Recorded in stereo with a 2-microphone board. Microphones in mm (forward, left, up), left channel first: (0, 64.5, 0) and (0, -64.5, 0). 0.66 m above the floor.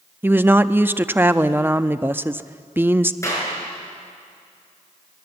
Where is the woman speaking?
15° right (ahead or behind), 0.5 m.